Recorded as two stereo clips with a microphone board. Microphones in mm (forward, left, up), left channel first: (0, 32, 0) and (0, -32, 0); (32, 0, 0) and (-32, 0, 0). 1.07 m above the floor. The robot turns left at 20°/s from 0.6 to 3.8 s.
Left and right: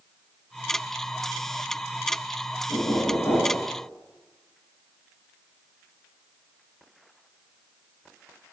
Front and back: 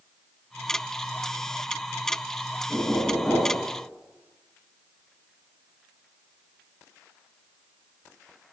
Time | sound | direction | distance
2.7 | knocking | 85° left | 8.5 m